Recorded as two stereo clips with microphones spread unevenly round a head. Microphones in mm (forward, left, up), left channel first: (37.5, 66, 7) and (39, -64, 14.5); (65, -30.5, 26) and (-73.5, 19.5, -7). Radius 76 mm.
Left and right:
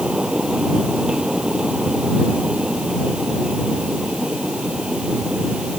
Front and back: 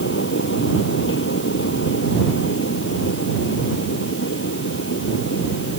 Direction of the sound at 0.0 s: 5° right.